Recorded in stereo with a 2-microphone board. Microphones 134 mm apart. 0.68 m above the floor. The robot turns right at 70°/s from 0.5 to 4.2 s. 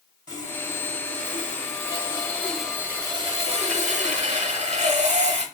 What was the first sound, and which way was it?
Sawing, 35° left.